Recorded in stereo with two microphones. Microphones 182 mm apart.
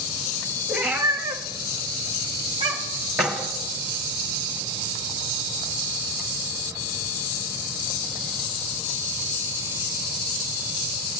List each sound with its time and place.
0.7 s a cat meowing: 5° right (ahead or behind), 1.2 m; by 3.1 s 20° right (ahead or behind), 1.9 m
3.2 s keys jangling: 5° right (ahead or behind), 1.4 m